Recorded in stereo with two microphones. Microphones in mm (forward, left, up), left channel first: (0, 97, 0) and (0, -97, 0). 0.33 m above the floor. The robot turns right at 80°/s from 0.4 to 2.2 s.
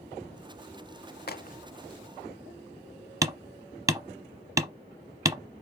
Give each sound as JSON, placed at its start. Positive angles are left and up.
{"t": 1.3, "sound": "a crack", "side_deg": 55, "distance_m": 0.8}
{"t": 3.2, "sound": "hammering", "side_deg": -15, "distance_m": 0.9}